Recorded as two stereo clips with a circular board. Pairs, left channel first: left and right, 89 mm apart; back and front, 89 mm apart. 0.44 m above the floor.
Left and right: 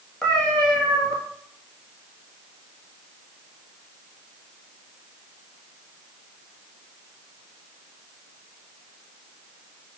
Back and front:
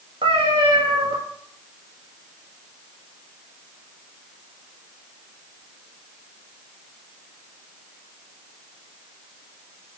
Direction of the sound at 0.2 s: 10° left.